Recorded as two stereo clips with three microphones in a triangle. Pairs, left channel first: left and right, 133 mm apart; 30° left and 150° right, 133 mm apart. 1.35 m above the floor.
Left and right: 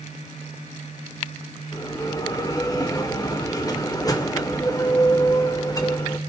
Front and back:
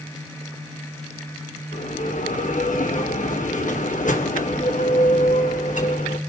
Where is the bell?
30° left, 1.8 m.